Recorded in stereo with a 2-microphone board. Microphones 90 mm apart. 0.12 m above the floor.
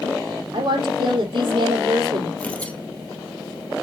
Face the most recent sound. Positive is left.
turn(degrees=15)  # may be behind; listen again after turning